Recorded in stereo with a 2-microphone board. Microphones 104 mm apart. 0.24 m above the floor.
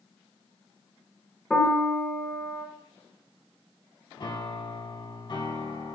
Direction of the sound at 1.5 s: 5° left (ahead or behind).